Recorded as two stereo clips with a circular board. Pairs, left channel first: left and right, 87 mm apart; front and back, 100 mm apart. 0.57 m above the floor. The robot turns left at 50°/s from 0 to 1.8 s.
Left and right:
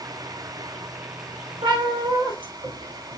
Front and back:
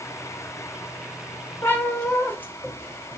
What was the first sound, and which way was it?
A cat meowing, 60° right.